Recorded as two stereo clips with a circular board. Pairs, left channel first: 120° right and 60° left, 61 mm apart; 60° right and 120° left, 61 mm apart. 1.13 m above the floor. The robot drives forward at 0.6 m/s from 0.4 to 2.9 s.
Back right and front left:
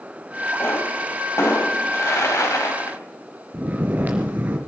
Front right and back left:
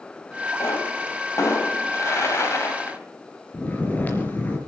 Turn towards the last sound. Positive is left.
turn(degrees=0)